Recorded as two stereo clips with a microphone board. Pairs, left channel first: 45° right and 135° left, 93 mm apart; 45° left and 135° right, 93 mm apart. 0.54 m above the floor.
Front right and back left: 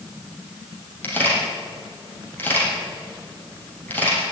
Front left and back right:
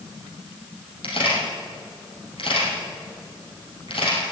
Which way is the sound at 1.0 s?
25° left.